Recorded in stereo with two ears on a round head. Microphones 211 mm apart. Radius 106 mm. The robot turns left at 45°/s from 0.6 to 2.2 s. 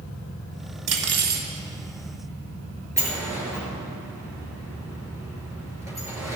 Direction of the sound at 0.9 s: 80° right.